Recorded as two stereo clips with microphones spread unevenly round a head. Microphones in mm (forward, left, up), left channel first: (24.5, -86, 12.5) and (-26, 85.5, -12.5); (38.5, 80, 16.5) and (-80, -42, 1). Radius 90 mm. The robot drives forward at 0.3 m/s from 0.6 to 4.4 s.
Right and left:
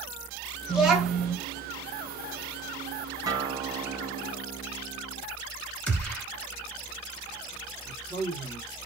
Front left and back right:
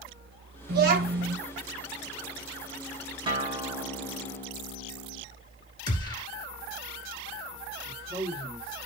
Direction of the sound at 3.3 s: 170° left.